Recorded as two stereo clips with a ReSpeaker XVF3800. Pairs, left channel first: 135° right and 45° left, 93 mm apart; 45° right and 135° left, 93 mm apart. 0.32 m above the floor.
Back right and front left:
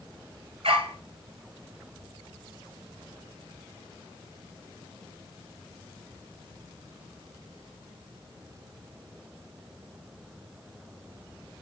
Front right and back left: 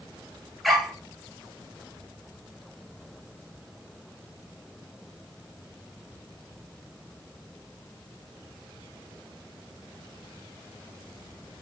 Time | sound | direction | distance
0.6 | a dog barking | 45° left | 1.9 m